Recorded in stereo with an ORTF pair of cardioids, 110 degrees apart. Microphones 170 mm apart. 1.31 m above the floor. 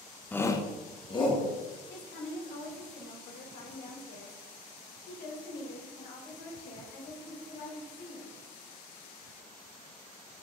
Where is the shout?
10° left, 0.6 m; by 1.5 s 30° left, 2 m.